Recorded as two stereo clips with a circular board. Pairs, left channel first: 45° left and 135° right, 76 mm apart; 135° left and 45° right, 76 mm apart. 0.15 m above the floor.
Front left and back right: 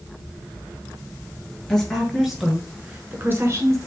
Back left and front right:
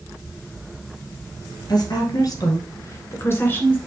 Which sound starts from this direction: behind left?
A woman speaking, at 1.7 s.